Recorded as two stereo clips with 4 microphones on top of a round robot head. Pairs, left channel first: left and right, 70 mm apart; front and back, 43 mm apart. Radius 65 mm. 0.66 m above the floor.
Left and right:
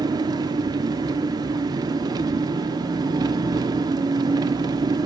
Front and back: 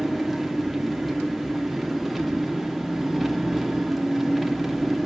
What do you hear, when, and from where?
0.0 s an engine running: 90° right, 1.3 m